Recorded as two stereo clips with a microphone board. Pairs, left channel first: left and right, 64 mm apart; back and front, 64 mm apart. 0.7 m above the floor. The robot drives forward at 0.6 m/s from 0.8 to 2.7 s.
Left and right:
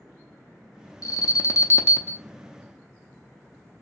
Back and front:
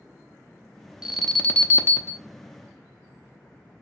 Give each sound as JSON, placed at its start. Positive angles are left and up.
{"t": 1.0, "sound": "an alarm", "azimuth_deg": 75, "distance_m": 0.6}